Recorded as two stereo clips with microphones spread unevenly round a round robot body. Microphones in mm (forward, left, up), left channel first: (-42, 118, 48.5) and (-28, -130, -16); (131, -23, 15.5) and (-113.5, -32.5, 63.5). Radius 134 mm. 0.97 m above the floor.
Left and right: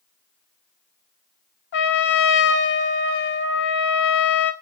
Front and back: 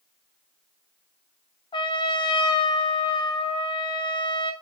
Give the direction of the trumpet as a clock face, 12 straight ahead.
9 o'clock.